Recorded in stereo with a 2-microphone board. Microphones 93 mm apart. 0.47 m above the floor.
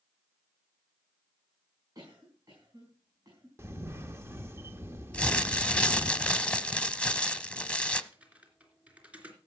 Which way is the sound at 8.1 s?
15° right (ahead or behind).